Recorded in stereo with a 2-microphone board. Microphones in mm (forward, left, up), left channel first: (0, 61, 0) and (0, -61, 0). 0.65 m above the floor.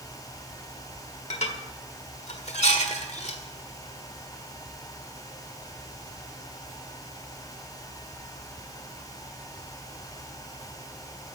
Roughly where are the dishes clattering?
Left.